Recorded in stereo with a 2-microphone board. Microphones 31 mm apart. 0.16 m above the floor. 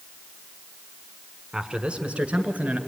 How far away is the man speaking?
About 1.4 m.